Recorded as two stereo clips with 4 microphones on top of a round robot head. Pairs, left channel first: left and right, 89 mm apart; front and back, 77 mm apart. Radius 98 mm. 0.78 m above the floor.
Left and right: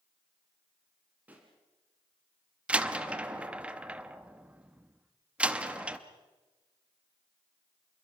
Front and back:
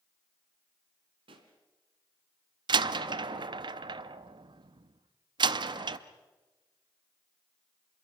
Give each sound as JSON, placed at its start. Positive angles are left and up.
{"t": 1.3, "sound": "a pop", "azimuth_deg": -165, "distance_m": 2.0}
{"t": 2.7, "sound": "a door slam", "azimuth_deg": -165, "distance_m": 0.8}